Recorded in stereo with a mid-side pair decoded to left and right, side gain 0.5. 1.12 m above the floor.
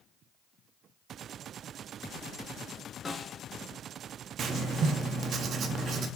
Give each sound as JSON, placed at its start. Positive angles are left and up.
{"t": 3.0, "sound": "a snare drum", "azimuth_deg": 25, "distance_m": 1.7}
{"t": 4.4, "sound": "writing", "azimuth_deg": -50, "distance_m": 1.3}